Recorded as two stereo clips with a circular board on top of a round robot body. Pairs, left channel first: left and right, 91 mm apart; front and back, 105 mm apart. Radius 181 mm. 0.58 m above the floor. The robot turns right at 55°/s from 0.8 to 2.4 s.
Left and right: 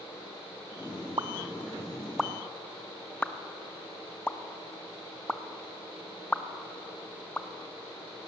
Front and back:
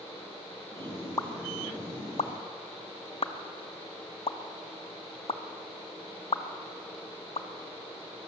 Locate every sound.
1.2 s a pop: 55° right, 1.2 m; by 7.5 s 15° left, 1.2 m